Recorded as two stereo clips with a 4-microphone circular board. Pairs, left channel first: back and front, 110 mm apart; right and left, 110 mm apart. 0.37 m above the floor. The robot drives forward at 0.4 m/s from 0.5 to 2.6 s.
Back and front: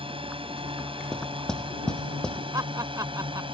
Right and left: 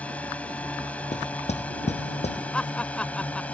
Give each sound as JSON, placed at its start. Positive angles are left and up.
{"t": 0.0, "sound": "a drone", "azimuth_deg": -15}
{"t": 1.1, "sound": "knocking", "azimuth_deg": -95}
{"t": 2.5, "sound": "laughter", "azimuth_deg": -15}